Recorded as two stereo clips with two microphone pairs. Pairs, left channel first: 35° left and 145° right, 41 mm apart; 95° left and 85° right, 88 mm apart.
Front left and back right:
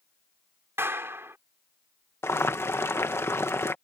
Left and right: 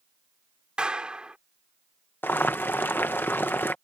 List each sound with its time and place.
0.8 s a clap: 165° right
2.2 s boiling: 30° left